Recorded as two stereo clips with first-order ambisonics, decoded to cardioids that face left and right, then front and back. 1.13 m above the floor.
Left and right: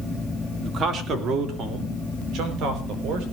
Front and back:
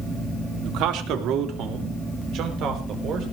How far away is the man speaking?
About 2.5 m.